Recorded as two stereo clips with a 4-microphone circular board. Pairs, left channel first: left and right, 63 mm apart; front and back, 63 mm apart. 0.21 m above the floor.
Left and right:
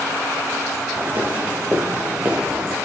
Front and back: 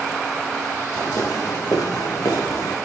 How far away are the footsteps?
About 5.5 m.